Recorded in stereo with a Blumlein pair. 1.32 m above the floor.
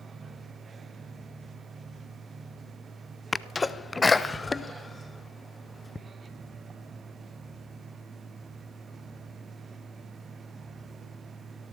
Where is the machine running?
15° right, 1.0 m.